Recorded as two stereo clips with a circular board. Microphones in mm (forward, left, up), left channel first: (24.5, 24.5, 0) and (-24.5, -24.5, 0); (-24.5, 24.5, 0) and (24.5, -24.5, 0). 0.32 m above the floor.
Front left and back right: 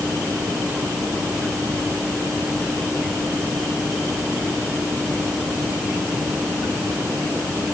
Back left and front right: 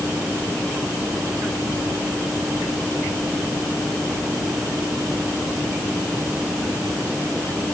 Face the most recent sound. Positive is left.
No sound to turn to.